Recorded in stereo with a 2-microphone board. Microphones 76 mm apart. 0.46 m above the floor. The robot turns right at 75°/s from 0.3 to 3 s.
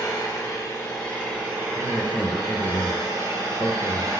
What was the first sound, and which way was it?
An engine running, 105° left.